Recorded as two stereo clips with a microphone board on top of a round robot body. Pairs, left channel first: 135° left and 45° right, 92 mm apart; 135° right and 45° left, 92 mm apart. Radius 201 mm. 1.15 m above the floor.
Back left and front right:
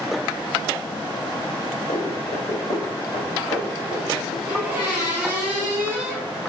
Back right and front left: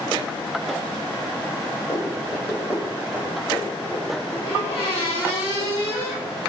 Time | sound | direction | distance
1.9 | running footsteps | 170° left | 5 m
4.5 | a squeak | 115° right | 4.5 m